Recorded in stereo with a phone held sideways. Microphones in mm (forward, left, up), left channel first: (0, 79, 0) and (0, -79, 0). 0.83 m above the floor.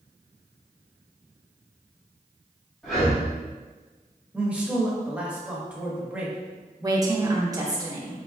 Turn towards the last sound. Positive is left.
turn(degrees=-25)  # may be behind; listen again after turning